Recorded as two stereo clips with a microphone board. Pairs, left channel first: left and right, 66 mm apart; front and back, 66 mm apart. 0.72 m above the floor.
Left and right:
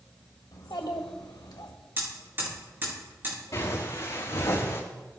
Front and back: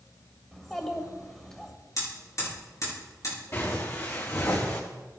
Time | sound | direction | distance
0.5 | a child speaking | 85° left | 2.0 m
2.0 | hammering | 35° right | 6 m
3.5 | footsteps | 50° left | 4.5 m